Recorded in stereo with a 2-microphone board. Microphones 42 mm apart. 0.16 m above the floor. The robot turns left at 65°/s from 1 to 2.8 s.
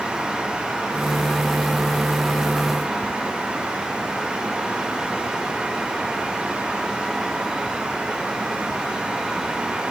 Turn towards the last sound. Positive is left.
No sound to turn to.